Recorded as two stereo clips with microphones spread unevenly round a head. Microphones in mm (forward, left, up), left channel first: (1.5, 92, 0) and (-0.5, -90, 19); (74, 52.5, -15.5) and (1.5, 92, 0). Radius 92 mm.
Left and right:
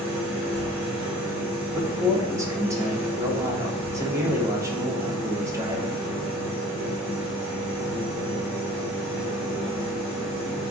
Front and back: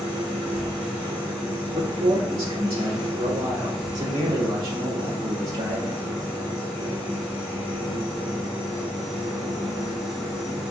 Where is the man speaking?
165° right, 0.8 m.